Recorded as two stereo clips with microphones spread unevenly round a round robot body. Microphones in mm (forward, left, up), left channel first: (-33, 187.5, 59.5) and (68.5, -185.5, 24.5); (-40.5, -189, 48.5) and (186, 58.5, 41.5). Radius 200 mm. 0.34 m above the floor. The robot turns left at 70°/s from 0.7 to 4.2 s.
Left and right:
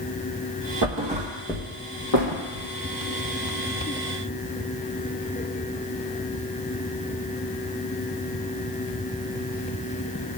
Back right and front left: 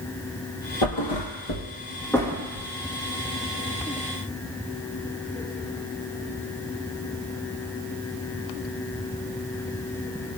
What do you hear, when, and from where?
0.8 s a thud: 125° right, 1.9 m; by 2.7 s 105° left, 1.9 m